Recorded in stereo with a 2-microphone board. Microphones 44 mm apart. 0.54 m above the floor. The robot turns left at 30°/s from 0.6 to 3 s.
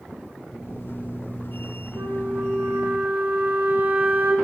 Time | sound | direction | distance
1.9 | a flute | 100° right | 4 m